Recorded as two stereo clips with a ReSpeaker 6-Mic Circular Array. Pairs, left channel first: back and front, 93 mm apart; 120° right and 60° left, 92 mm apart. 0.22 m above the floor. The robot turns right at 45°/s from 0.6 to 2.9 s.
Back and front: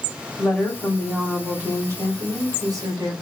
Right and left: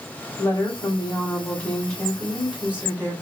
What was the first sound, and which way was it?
A woman speaking, 100° right.